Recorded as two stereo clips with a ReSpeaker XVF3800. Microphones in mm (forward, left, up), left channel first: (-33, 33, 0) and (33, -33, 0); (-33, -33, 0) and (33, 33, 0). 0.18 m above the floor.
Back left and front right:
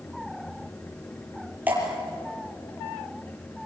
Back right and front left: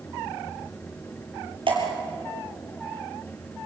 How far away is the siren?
I don't hear a siren.